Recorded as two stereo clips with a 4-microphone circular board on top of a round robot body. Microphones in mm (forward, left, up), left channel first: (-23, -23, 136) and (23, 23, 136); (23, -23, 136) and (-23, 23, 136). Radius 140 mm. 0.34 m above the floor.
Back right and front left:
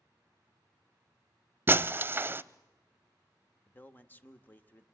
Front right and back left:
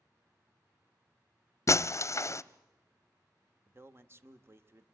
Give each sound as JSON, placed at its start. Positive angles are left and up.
{"t": 1.7, "sound": "breaking glass", "azimuth_deg": -10, "distance_m": 0.6}
{"t": 3.7, "sound": "a man speaking", "azimuth_deg": 170, "distance_m": 1.2}